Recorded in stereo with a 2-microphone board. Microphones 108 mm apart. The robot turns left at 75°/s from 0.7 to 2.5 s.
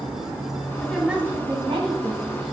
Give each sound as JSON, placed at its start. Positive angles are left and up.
{"t": 0.8, "sound": "a woman speaking", "azimuth_deg": 15, "distance_m": 3.5}